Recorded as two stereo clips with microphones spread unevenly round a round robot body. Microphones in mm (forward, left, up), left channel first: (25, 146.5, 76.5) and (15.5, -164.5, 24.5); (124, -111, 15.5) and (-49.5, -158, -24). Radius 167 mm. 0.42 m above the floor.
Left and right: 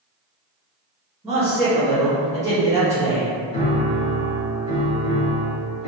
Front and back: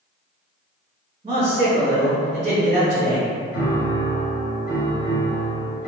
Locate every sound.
1.2 s a man speaking: 160° right, 1.1 m
3.5 s a piano: 15° left, 1.0 m